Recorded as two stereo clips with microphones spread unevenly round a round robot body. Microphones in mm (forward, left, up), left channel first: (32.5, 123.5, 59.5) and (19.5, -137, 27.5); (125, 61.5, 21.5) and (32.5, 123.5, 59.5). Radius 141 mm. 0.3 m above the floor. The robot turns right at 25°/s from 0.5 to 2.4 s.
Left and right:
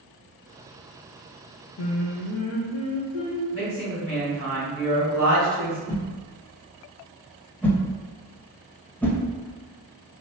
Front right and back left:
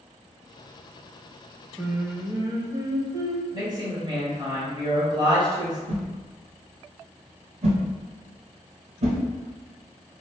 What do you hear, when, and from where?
1.8 s singing: 60° left, 0.8 m; by 3.4 s 75° left, 0.8 m
3.5 s a woman speaking: 85° left, 1.9 m
5.9 s a whoosh: 175° left, 0.5 m